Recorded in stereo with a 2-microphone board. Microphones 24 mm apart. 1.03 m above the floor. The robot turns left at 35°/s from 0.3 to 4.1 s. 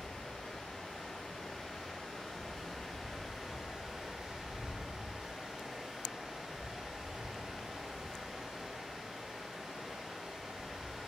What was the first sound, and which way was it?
Running water, 95° left.